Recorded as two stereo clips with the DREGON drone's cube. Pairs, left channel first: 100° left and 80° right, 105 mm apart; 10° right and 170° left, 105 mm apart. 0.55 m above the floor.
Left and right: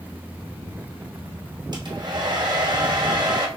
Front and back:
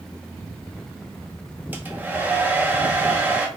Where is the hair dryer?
115° right, 0.6 m.